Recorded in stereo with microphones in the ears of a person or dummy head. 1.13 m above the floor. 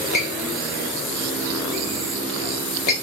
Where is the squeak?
45° left (ahead or behind), 0.9 m.